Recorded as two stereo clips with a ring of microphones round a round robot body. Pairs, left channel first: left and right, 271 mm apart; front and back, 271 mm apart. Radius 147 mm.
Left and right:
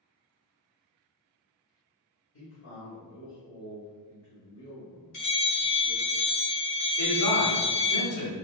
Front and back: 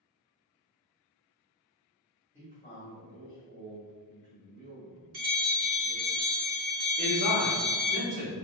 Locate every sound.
2.3 s a man speaking: 80° left, 1.4 m
5.1 s a bell: 135° left, 1.4 m
7.0 s a man speaking: 115° left, 1.5 m